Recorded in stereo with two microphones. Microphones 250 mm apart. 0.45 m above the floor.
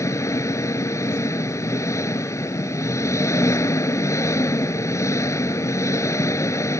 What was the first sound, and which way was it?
An engine running, 10° left (ahead or behind).